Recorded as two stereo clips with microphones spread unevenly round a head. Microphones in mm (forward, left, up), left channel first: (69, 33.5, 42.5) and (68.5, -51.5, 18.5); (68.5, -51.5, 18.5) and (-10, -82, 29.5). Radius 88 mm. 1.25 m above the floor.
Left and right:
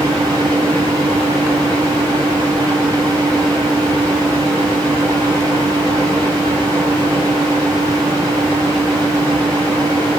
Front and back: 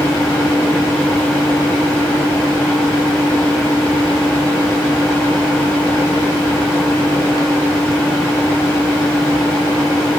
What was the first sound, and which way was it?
A fan, 40° right.